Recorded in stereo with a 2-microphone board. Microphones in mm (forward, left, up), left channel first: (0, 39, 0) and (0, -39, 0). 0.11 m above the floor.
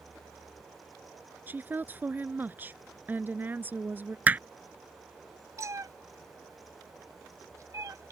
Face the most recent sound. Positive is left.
turn(degrees=-45)  # may be behind; listen again after turning